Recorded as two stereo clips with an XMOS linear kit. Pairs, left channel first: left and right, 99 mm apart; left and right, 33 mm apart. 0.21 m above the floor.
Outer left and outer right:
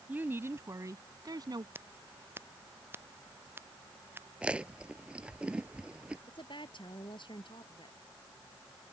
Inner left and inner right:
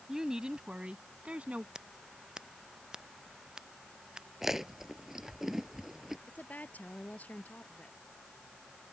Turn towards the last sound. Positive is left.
turn(degrees=55)  # may be behind; listen again after turning